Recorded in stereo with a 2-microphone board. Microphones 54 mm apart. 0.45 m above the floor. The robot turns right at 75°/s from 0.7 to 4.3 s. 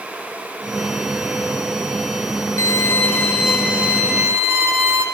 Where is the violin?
110° left, 1.8 m; by 5.0 s 120° right, 1.8 m.